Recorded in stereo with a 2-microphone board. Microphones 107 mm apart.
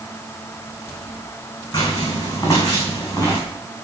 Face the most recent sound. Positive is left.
turn(degrees=30)  # may be behind; listen again after turning